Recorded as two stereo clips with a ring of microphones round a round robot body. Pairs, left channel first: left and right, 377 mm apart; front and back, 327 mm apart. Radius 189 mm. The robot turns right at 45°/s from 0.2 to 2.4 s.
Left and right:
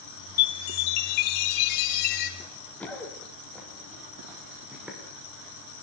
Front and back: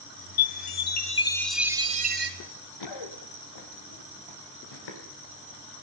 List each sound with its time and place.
0.4 s a chime: 40° left, 2.5 m; by 2.3 s 125° left, 2.5 m
2.4 s running footsteps: 5° left, 4 m; by 5.0 s 5° right, 7 m